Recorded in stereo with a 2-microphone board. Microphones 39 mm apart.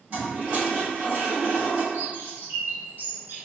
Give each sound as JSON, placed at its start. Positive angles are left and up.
{"t": 0.1, "sound": "a toilet flushing", "side_deg": -45, "distance_m": 1.5}
{"t": 1.9, "sound": "a bird", "side_deg": -70, "distance_m": 1.4}